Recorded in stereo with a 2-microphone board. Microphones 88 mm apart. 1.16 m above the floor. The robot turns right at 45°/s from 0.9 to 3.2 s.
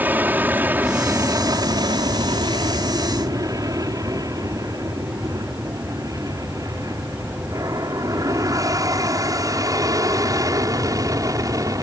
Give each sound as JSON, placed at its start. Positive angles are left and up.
{"t": 0.0, "sound": "an aircraft", "side_deg": -20}